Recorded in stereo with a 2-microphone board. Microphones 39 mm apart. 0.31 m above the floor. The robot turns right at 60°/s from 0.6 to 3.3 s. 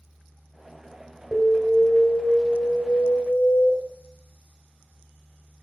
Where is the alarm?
15° right (ahead or behind), 1.8 m; by 3.7 s 30° left (ahead or behind), 1.8 m.